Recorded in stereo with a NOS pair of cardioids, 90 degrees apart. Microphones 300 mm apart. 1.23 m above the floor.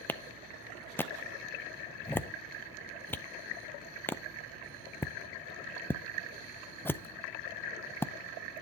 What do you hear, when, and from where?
0.1 s a clap: 5° left, 0.5 m